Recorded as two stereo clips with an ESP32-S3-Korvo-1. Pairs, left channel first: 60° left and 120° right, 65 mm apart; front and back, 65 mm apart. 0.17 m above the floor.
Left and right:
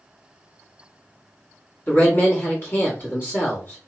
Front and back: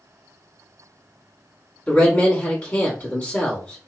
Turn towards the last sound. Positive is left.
turn(degrees=50)